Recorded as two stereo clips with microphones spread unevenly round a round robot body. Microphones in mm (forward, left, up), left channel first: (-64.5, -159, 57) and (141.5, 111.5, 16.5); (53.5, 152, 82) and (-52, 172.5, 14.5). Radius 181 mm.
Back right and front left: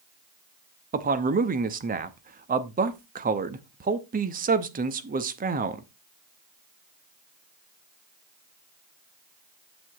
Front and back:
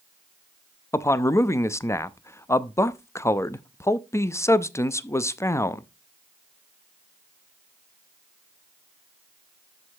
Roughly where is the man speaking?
Left.